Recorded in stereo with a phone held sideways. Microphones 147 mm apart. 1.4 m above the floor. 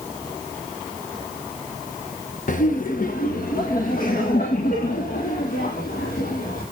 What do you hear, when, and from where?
2.5 s laughter: 60° left (ahead or behind), 1.0 m; by 6.6 s 80° left, 4 m